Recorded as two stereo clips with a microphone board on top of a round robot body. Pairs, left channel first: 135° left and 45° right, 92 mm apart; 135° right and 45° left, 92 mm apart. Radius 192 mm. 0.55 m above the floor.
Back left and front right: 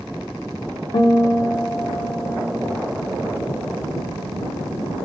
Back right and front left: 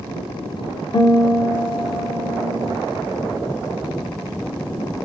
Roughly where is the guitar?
Behind.